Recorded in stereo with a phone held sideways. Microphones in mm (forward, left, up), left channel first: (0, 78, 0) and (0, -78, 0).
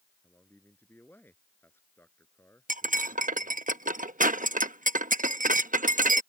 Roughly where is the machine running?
I don't hear a machine running.